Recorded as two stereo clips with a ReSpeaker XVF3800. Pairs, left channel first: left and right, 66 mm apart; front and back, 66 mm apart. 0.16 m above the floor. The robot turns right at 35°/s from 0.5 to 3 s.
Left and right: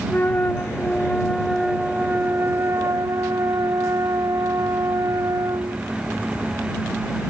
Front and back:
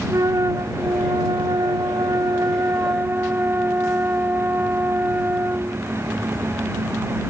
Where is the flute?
150° left; by 5.8 s 125° right.